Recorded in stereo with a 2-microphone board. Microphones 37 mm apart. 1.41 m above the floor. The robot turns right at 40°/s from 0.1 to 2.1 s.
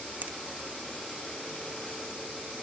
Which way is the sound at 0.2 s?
50° right (ahead or behind).